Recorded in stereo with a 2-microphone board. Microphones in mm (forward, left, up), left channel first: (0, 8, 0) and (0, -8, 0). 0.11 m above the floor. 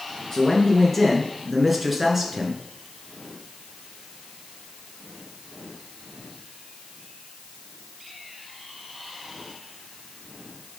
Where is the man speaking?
20° left (ahead or behind), 1.4 m; by 2.6 s 25° right (ahead or behind), 1.5 m.